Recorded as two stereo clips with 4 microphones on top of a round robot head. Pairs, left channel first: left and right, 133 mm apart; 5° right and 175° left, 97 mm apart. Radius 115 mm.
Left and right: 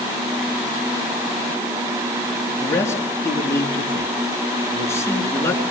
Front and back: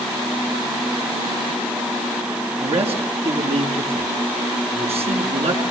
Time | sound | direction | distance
2.6 | a man speaking | 160° left | 7.5 m